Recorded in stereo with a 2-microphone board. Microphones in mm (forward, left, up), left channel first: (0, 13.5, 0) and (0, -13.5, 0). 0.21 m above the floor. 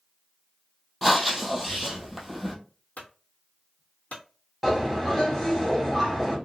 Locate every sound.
1.0 s breathing: centre (ahead or behind), 1.0 m
3.0 s a clunk: 70° left (ahead or behind), 1.1 m
4.6 s a bird: 10° left (ahead or behind), 1.5 m